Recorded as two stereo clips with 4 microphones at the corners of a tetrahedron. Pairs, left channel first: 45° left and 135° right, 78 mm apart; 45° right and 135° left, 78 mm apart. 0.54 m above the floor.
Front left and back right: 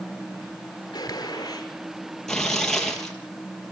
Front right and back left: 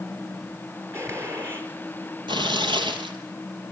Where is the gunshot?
80° left, 4.5 m.